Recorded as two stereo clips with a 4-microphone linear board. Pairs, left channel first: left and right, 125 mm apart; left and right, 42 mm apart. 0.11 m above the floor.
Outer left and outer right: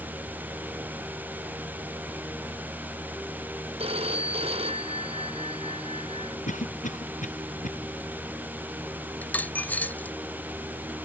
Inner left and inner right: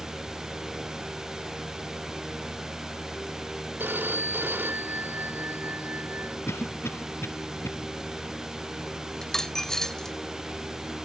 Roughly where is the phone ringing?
Right.